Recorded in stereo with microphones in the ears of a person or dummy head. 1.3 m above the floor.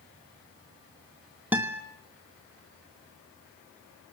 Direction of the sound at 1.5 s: 10° right (ahead or behind).